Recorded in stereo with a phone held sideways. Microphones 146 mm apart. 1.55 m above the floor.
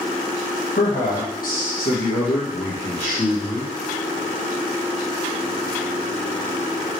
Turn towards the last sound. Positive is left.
turn(degrees=30)  # may be behind; listen again after turning